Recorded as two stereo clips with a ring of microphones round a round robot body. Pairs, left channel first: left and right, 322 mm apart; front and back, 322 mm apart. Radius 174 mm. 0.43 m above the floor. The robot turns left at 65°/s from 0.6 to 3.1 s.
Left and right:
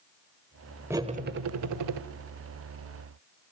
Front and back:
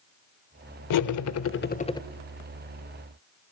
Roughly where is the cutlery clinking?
Ahead.